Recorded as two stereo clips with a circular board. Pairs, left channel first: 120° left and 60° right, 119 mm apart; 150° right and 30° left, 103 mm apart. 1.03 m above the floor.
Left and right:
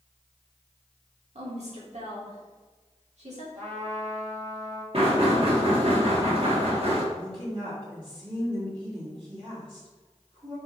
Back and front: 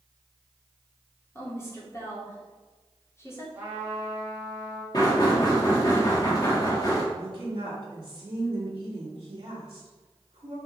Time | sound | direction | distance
1.4 | a woman speaking | 85° right | 2.5 m
3.5 | a trumpet | 40° right | 2.5 m
4.9 | knocking | 95° right | 1.8 m
7.1 | a woman speaking | 15° right | 2.5 m